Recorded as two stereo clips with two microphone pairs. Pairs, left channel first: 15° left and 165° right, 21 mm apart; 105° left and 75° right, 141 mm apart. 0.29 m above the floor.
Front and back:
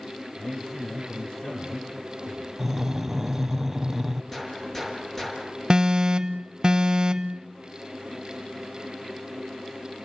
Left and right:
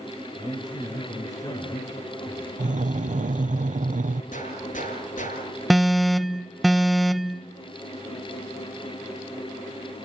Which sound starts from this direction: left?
A gunshot, at 4.3 s.